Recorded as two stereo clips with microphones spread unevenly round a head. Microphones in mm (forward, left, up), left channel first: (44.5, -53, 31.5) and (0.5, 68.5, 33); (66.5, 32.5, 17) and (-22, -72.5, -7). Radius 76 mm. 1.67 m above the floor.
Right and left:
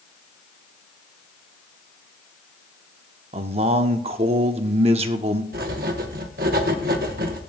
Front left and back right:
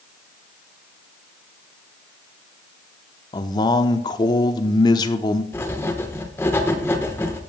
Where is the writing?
120° left, 1.1 m.